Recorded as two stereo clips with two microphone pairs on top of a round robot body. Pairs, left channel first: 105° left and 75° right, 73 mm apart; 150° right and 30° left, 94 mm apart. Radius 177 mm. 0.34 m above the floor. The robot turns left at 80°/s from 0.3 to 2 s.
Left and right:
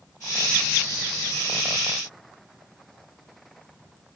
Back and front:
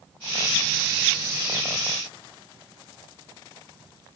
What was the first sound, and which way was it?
Only background noise.